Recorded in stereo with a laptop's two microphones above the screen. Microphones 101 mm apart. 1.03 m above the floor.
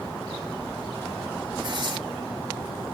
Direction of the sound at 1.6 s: 45° right (ahead or behind).